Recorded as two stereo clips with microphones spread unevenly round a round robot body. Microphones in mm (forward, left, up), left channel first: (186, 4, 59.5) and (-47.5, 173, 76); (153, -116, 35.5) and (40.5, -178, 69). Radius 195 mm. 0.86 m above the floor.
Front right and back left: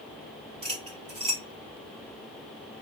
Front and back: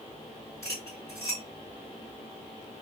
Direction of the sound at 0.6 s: 85° left.